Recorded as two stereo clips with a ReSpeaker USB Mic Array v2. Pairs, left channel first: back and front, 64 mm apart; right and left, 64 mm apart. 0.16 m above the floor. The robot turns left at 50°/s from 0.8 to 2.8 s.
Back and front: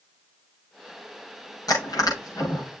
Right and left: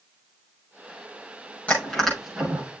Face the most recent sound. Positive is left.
turn(degrees=145)